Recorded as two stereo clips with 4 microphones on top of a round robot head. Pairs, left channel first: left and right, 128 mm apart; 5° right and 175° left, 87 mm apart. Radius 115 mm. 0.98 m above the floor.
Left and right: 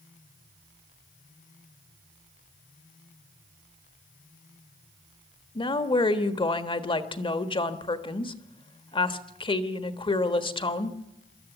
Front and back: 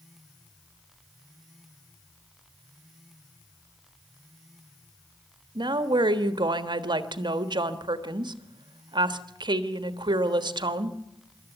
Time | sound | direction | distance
5.5 | a woman speaking | 140° left | 1.5 m